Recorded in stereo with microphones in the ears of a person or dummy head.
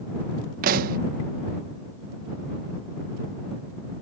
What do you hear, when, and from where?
0.6 s a pop: 50° right (ahead or behind)